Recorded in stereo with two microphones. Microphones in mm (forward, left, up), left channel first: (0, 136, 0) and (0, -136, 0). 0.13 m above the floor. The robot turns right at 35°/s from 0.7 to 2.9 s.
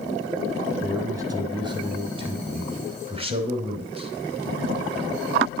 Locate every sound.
0.8 s a man speaking: 10° right (ahead or behind), 1.1 m; by 4.1 s 20° right (ahead or behind), 1.1 m